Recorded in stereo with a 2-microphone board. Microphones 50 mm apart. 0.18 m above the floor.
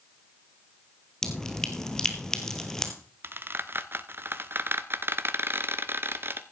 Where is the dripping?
10° left (ahead or behind), 1.7 m.